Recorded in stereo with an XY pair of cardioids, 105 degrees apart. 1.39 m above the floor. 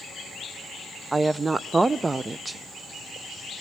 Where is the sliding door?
I don't hear a sliding door.